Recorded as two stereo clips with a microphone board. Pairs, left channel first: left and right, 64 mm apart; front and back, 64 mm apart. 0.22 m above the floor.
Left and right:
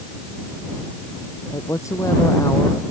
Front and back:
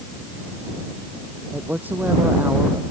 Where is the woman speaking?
120° left.